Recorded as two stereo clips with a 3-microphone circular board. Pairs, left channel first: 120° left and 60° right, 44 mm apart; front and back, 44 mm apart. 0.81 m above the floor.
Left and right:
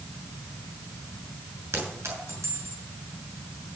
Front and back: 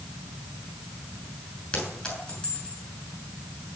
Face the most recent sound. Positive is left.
turn(degrees=-65)